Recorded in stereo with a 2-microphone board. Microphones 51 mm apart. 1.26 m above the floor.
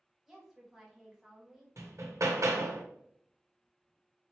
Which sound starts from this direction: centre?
A woman speaking, at 0.3 s.